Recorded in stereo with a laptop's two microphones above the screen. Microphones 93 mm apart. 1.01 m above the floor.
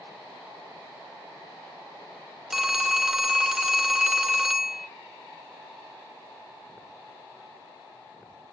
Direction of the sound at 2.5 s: 5° right (ahead or behind).